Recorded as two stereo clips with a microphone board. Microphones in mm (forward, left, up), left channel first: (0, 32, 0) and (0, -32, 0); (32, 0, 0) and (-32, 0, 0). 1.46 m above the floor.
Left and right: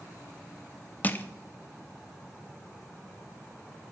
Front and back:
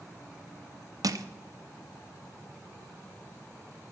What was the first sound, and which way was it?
Crushing, 155° left.